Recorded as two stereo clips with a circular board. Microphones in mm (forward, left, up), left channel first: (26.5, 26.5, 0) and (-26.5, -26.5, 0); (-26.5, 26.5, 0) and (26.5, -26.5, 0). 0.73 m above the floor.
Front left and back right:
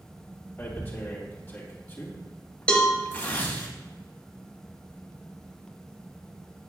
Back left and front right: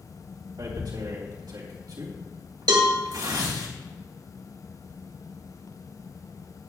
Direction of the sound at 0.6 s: 20° right.